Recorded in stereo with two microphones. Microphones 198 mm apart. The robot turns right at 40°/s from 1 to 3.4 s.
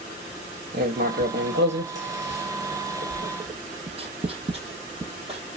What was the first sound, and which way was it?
Writing, 50° right (ahead or behind).